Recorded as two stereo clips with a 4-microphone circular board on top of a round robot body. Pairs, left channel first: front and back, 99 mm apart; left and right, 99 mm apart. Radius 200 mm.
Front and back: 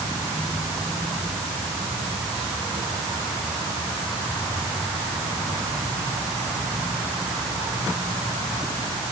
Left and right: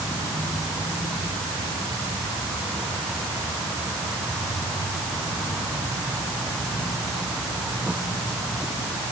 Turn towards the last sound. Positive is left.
No sound to turn to.